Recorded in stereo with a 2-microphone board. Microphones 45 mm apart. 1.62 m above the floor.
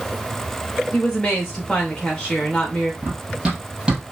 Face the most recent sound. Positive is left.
turn(degrees=-15)  # may be behind; listen again after turning